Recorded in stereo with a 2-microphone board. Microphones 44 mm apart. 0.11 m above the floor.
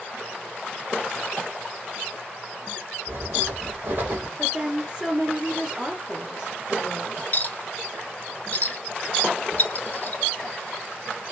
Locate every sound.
3.1 s writing: 50° right (ahead or behind), 1.6 m
4.4 s a woman speaking: 20° right (ahead or behind), 1.3 m
7.3 s a clink: 35° left (ahead or behind), 0.8 m